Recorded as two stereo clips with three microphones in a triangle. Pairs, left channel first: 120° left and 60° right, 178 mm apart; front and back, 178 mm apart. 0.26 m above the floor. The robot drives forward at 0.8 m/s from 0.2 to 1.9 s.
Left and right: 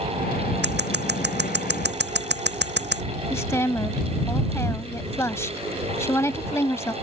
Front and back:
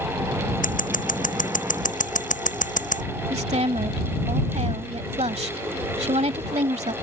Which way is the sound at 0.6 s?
40° right.